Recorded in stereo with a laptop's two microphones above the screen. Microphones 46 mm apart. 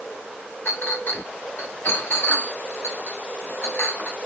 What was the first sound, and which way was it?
A clink, 55° left (ahead or behind).